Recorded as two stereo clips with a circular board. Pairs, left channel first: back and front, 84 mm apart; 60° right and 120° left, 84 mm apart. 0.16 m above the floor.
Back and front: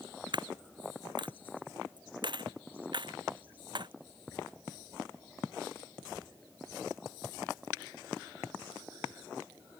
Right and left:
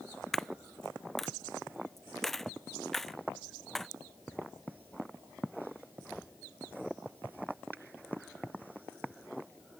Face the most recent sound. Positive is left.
turn(degrees=25)